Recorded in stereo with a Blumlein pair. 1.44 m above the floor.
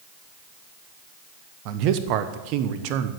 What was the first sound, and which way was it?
A man speaking, 40° right.